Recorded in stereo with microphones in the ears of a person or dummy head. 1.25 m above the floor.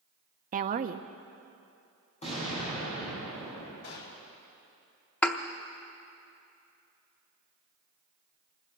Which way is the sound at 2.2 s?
30° left (ahead or behind).